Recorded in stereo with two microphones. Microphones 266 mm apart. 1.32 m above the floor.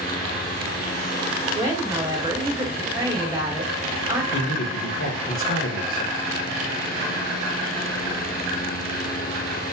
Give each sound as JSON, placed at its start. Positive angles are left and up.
{"t": 1.6, "sound": "a woman speaking", "side_deg": -15, "distance_m": 1.5}
{"t": 4.3, "sound": "a man speaking", "side_deg": 55, "distance_m": 0.9}